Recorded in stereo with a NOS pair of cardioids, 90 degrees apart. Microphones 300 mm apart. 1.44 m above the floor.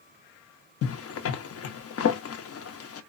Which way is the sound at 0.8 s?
50° left.